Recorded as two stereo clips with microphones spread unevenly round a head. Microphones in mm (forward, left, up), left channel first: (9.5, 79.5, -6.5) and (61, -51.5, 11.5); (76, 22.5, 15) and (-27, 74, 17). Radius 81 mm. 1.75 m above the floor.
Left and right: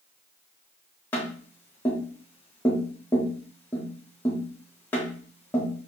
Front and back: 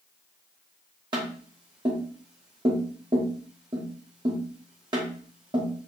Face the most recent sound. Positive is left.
turn(degrees=-165)